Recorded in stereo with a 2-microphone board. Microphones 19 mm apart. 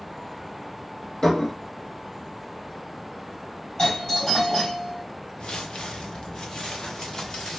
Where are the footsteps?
70° left (ahead or behind), 0.9 m; by 7.6 s 40° left (ahead or behind), 2 m.